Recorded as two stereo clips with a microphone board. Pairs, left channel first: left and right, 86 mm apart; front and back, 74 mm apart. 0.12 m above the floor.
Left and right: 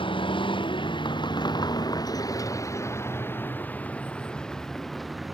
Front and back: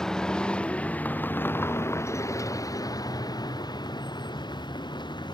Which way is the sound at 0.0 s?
80° left.